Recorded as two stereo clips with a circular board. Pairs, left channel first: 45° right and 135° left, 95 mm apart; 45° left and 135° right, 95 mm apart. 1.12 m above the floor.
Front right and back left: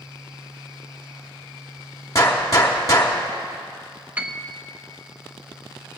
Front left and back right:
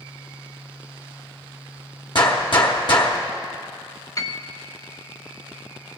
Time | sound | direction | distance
2.1 | a gunshot | 10° left | 1.3 m
4.2 | a piano | 70° left | 0.7 m